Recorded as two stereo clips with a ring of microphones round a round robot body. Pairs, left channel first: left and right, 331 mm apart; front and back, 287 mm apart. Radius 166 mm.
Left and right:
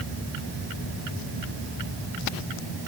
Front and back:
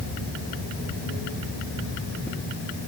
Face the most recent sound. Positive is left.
No sound to turn to.